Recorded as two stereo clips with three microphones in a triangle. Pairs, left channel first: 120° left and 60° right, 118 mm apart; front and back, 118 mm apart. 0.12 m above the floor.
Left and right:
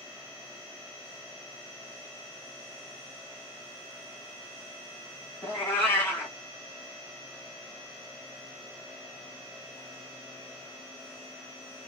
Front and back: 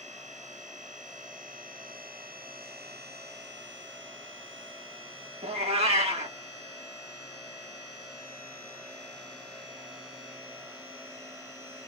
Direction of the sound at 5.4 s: 170° right.